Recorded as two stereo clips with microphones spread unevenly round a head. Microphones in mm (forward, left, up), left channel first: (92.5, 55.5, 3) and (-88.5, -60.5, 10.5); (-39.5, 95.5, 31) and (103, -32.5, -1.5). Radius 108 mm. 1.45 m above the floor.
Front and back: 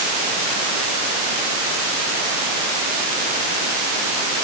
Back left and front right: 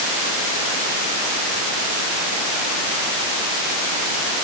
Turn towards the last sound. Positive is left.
No sound to turn to.